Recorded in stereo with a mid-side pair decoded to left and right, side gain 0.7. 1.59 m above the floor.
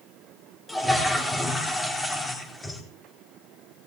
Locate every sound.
0.7 s a toilet flushing: 15° left, 4 m